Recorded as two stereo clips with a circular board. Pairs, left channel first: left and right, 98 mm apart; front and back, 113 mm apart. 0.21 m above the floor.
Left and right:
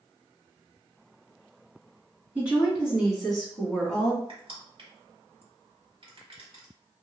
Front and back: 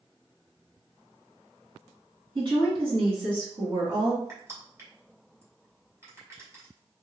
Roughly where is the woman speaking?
Behind.